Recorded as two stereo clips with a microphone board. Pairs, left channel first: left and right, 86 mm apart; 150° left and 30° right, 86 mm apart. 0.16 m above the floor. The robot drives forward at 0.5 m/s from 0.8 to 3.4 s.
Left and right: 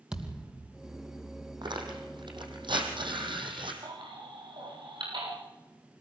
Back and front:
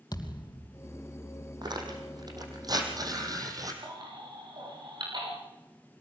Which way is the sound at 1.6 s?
65° right.